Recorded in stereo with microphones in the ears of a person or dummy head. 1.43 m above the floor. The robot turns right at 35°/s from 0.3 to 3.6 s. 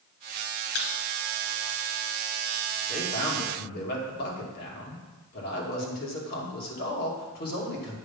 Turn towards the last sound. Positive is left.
turn(degrees=60)  # may be behind; listen again after turning